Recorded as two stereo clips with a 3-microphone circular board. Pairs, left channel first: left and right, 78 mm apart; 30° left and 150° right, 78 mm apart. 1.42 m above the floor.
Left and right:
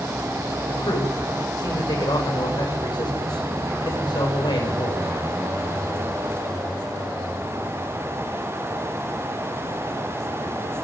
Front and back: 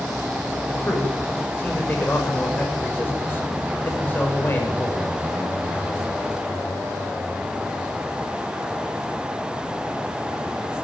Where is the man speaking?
95° left, 7 m.